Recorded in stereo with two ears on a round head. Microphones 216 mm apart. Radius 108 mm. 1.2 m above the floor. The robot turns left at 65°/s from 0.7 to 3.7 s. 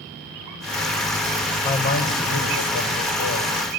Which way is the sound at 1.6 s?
160° left.